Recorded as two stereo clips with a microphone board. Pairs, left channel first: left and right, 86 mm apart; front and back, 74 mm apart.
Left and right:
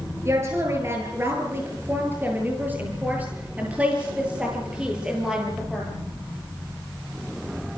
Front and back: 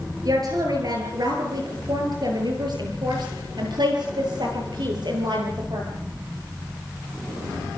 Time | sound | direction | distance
0.2 | a woman speaking | 145° right | 9 m